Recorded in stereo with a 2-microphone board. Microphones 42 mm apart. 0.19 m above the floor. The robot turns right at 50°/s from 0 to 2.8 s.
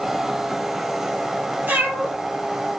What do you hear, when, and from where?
1.7 s a cat meowing: 55° right (ahead or behind), 1.5 m; by 2.1 s 35° right (ahead or behind), 1.5 m